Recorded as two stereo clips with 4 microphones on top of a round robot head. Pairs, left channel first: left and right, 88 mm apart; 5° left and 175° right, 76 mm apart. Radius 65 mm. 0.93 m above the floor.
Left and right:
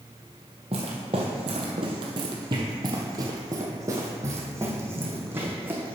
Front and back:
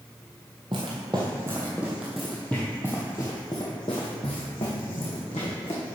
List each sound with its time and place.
0.7 s footsteps: 130° right, 1.4 m; by 6.0 s 25° right, 2.5 m